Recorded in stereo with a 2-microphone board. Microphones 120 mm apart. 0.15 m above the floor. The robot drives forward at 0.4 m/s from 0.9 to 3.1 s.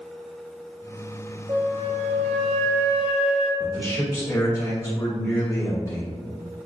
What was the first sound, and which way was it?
A flute, 50° right (ahead or behind).